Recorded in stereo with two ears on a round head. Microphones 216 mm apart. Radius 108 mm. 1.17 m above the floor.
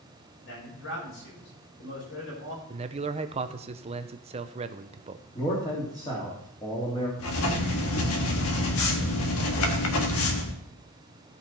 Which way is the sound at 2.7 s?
25° right (ahead or behind).